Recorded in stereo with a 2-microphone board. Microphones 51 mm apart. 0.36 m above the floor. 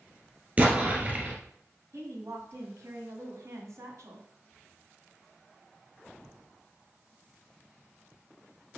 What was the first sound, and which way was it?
An explosion, 30° right (ahead or behind).